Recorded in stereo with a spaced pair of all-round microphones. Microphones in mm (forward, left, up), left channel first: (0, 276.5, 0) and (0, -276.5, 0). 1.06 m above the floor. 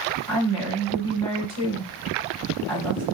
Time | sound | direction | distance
0.3 | a woman speaking | 60° right (ahead or behind) | 2.5 m